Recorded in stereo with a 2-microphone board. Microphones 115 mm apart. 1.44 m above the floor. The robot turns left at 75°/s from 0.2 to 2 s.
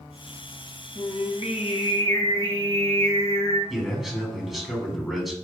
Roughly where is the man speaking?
Centre.